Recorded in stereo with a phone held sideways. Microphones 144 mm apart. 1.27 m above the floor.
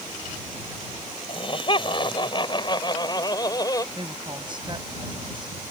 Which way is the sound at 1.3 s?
40° left (ahead or behind).